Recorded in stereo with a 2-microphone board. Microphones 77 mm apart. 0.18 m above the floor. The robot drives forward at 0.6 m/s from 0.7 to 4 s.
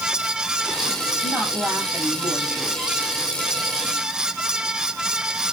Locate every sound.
1.2 s a woman speaking: 20° right (ahead or behind), 5 m; by 3.0 s 15° right (ahead or behind), 6 m